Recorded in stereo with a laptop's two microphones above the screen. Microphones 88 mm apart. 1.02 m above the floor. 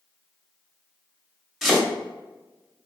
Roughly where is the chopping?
Centre.